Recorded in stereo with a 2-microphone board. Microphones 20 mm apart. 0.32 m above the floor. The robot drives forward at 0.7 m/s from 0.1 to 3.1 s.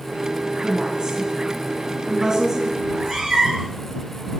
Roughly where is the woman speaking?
Right.